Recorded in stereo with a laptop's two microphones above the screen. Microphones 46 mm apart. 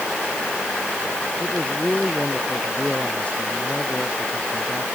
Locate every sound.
1.4 s a man speaking: 30° left (ahead or behind)